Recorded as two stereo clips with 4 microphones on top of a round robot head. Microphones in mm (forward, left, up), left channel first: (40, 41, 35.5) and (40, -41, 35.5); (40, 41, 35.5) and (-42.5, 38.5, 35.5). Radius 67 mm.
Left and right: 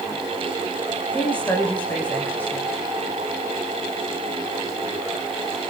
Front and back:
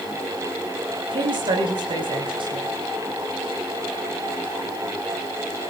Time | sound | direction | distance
1.1 | a woman speaking | 165° left | 6 m